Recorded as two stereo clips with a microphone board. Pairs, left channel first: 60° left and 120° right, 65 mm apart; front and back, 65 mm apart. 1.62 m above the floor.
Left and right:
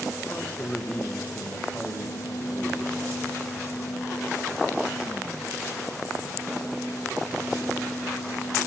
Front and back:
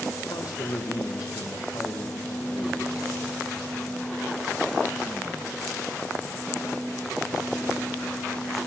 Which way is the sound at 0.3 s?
5° right.